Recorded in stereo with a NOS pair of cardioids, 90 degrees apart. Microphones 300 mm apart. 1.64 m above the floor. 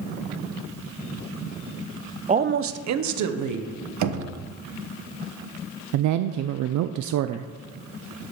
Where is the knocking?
70° right, 1.2 m.